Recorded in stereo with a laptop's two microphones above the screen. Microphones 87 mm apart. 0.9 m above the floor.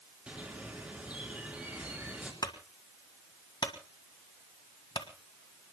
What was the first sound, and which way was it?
A bird, 15° right (ahead or behind).